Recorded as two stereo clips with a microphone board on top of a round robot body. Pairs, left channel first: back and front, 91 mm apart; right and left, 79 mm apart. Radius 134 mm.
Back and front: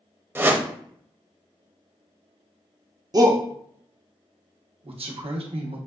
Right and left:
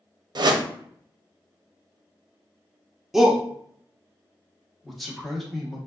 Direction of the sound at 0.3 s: 65° left.